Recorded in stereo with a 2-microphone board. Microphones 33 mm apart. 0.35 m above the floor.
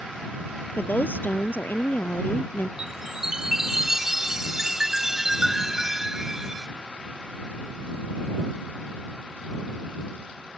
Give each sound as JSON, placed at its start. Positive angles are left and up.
{"t": 0.8, "sound": "a woman speaking", "side_deg": 80}
{"t": 2.8, "sound": "a chime", "side_deg": -10}